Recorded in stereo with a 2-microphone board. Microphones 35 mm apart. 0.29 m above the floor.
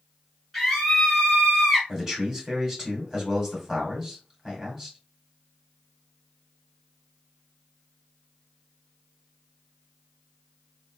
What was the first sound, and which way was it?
A scream, centre (ahead or behind).